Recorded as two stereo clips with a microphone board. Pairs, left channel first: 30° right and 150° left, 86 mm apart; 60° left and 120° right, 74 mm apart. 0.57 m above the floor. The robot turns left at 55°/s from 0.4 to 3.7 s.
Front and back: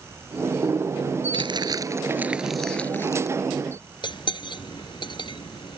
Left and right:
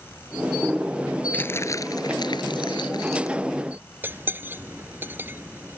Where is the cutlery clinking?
60° right.